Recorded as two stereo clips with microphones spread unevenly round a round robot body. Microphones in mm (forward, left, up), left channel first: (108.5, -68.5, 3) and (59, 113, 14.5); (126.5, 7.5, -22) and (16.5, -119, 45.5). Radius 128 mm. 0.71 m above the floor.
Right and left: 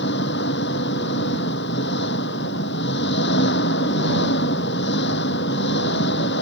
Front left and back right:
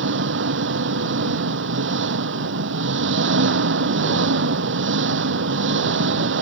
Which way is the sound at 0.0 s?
130° right.